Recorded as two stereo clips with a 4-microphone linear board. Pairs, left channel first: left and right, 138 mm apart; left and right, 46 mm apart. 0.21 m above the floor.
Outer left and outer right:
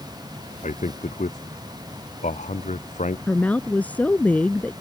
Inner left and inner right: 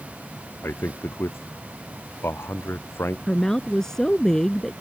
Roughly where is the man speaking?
Left.